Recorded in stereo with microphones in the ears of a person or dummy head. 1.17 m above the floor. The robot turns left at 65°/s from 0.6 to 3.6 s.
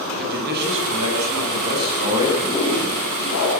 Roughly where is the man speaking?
Ahead right.